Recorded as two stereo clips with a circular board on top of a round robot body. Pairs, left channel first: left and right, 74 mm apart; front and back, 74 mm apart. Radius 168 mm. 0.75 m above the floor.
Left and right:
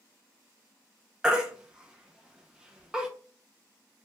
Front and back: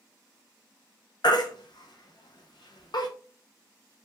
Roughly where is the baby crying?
Ahead.